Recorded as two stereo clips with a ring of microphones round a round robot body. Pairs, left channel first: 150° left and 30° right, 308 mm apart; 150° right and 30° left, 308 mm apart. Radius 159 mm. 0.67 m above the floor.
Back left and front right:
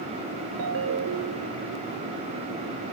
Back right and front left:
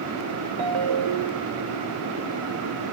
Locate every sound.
0.6 s a ringtone: 15° left